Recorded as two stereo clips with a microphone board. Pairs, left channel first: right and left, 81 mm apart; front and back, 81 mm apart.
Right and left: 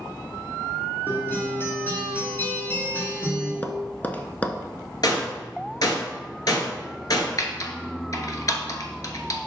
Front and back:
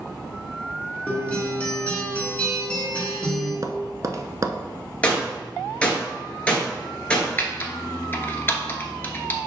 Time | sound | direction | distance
1.1 | a guitar | 55° right | 1.7 m
3.6 | tapping | 150° right | 0.6 m
5.0 | a gunshot | 75° right | 1.7 m
7.4 | typing on a keyboard | 60° right | 1.0 m